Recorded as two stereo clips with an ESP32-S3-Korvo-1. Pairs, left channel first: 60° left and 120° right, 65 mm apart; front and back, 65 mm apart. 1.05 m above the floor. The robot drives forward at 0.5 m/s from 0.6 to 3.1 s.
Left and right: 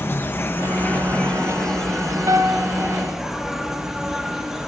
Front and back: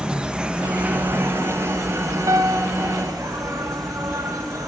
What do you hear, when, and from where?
0.0 s an insect: 105° left, 0.8 m; by 4.7 s 155° left, 1.6 m
2.3 s a piano: 150° right, 0.5 m; by 2.7 s 160° right, 0.7 m